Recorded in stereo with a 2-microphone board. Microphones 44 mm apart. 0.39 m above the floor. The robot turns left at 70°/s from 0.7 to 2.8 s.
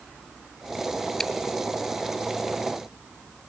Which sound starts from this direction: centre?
Chewing, at 1.2 s.